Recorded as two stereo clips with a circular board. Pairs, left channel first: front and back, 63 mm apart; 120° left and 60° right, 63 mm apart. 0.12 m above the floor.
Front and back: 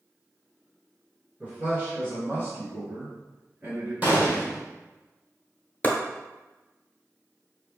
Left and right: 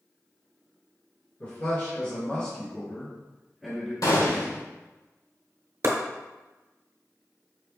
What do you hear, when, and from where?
1.4 s a man speaking: 125° left, 1.7 m; by 3.9 s 150° right, 1.9 m
4.0 s a gunshot: 115° left, 1.3 m
5.8 s chopping: 55° right, 0.8 m